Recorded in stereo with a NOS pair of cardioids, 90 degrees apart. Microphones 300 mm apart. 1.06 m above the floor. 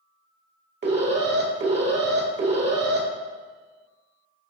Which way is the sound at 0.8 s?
35° right.